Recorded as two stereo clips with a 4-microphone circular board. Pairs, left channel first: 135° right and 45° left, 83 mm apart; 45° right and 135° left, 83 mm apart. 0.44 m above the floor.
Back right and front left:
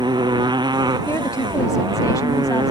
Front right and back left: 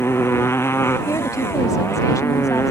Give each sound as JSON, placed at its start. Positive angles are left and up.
{"t": 0.0, "sound": "a motorcycle", "azimuth_deg": 15}
{"t": 1.1, "sound": "a woman speaking", "azimuth_deg": -90}